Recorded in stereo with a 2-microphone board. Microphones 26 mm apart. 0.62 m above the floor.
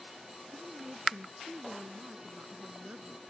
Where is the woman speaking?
45° right (ahead or behind).